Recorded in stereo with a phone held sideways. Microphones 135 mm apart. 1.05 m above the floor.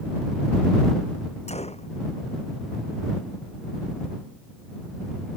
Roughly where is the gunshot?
Left.